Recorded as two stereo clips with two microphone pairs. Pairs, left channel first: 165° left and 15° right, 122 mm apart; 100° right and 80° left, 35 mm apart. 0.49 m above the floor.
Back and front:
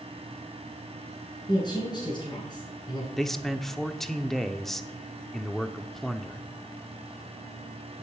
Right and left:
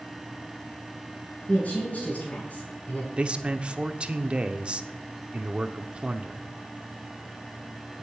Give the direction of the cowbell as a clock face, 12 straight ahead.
No cowbell in this recording.